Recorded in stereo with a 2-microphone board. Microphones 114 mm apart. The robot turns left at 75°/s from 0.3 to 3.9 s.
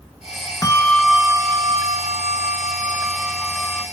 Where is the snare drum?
No snare drum in this recording.